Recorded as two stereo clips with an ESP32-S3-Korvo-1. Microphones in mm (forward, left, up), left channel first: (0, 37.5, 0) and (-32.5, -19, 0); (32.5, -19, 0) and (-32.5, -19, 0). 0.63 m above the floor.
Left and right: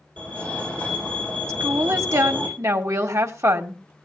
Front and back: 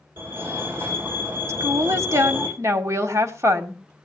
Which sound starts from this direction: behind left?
A fire alarm, at 0.2 s.